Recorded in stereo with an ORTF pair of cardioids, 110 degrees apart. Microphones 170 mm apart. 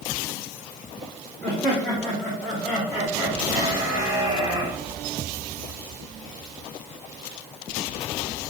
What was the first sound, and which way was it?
Laughter, 10° left.